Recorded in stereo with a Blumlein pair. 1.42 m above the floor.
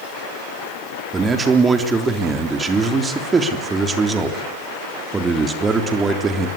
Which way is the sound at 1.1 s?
15° right.